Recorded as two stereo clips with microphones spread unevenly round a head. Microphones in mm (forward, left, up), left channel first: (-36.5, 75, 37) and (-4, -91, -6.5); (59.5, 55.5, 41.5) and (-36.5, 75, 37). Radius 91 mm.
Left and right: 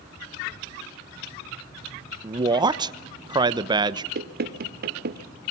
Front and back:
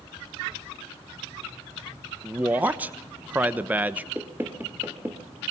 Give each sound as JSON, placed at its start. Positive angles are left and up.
{"t": 2.2, "sound": "a man speaking", "azimuth_deg": -120, "distance_m": 1.1}
{"t": 4.2, "sound": "knocking", "azimuth_deg": -115, "distance_m": 1.8}